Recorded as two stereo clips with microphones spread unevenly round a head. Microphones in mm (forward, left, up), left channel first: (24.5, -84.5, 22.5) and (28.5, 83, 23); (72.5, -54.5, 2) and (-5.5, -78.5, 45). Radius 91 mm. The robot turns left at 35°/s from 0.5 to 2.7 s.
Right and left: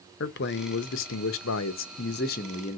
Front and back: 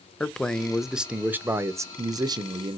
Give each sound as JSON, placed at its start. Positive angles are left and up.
{"t": 0.2, "sound": "a man speaking", "azimuth_deg": -70, "distance_m": 0.6}